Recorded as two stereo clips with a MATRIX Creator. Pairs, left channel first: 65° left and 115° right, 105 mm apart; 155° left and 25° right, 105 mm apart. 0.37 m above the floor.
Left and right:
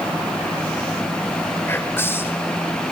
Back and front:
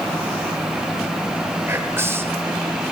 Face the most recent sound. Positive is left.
turn(degrees=20)